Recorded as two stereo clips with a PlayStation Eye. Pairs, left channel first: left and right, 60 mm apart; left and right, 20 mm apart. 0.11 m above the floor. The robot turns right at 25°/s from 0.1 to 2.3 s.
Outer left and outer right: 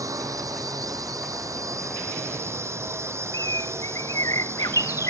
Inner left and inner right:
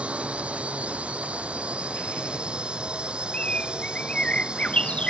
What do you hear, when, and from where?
0.0 s a drone: 105° right; by 5.1 s 50° right
3.3 s a bird: 60° left (ahead or behind)